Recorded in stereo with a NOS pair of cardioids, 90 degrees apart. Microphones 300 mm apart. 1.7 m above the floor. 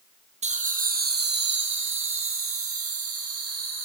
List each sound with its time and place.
0.4 s laughter: 25° right, 1.6 m; by 3.9 s 55° right, 3 m